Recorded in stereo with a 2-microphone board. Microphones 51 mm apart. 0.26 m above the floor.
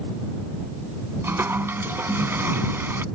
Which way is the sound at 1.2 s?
50° right (ahead or behind).